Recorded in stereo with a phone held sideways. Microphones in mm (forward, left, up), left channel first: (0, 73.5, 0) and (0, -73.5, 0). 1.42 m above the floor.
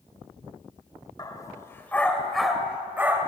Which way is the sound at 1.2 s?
25° left (ahead or behind).